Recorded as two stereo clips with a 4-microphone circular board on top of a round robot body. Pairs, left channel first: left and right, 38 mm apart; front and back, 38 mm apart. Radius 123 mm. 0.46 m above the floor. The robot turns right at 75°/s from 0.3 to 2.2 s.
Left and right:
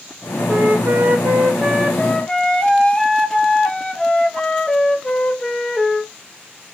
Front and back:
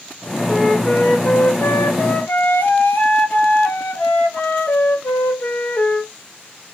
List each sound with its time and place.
0.5 s a flute: 105° right, 1.1 m; by 6.1 s 20° left, 1.1 m